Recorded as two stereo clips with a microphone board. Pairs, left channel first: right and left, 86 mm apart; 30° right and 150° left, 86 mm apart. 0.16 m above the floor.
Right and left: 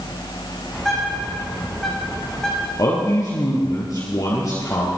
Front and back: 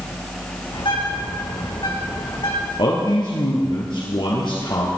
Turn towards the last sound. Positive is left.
turn(degrees=-45)